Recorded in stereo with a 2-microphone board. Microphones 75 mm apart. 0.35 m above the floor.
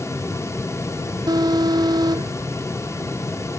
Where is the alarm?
60° right (ahead or behind).